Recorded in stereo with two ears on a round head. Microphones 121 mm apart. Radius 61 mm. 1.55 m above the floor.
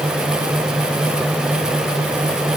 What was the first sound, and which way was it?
Only background noise.